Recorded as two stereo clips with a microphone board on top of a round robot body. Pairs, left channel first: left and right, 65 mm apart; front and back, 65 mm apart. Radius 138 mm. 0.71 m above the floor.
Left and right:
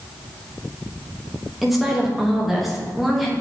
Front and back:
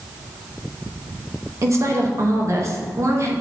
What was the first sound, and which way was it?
A woman speaking, straight behind.